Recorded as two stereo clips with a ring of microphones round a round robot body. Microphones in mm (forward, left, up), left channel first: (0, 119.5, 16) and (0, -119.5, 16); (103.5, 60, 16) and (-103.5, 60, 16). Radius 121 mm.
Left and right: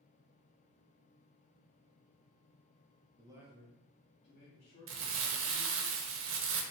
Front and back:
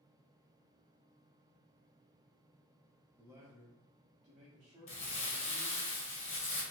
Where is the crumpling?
60° right, 0.6 m.